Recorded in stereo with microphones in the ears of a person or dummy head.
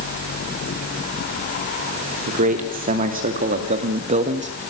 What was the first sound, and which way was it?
A man speaking, 40° right (ahead or behind).